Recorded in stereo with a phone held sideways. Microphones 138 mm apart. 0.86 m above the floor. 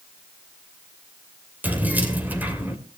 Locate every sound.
1.6 s keys jangling: 10° right (ahead or behind), 2.5 m